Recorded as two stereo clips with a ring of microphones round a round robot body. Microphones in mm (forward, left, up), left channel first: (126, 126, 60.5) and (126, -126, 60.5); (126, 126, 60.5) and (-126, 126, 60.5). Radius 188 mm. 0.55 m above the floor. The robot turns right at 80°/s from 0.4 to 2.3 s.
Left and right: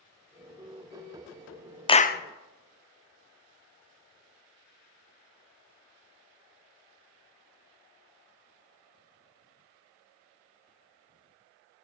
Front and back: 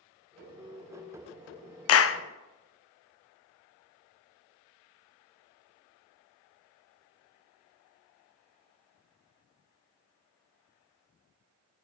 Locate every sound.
1.9 s a clap: 15° left, 0.6 m; by 2.2 s 40° left, 0.6 m